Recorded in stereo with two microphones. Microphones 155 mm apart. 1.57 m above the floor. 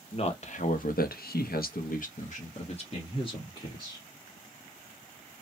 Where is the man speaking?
40° left (ahead or behind), 0.8 m; by 4.0 s 30° left (ahead or behind), 1.6 m.